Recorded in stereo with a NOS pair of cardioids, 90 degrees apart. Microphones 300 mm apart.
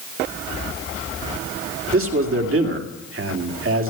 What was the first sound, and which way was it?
A man speaking, 45° right.